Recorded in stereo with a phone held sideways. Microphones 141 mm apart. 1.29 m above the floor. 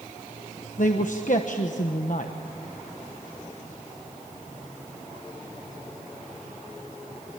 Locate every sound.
0.8 s a man speaking: 65° left (ahead or behind), 1.2 m